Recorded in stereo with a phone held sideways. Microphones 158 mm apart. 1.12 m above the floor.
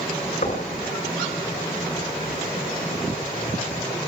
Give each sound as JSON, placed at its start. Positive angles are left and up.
{"t": 0.4, "sound": "knocking", "side_deg": 55, "distance_m": 4.5}